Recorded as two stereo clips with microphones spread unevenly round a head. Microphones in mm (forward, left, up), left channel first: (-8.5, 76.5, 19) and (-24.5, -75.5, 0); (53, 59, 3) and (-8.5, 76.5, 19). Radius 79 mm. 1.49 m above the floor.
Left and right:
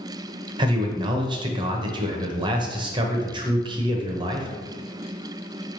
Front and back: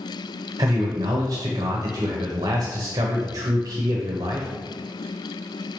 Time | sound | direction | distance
0.6 | a man speaking | 160° right | 0.6 m